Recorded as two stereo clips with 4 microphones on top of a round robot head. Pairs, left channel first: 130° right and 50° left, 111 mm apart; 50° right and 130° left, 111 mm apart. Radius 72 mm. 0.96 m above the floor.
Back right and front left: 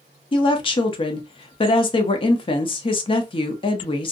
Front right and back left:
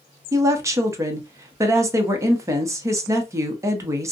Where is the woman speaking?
170° right, 0.7 m.